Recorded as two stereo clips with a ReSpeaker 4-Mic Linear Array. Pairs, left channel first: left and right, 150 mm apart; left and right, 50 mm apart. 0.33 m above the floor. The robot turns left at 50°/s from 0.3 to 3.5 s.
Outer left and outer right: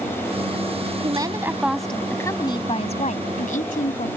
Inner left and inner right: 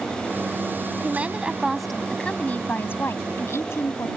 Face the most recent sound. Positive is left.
turn(degrees=95)